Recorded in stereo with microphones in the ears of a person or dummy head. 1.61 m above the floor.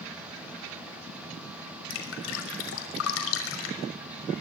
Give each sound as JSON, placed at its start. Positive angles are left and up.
{"t": 1.9, "sound": "dripping", "side_deg": 80, "distance_m": 6.0}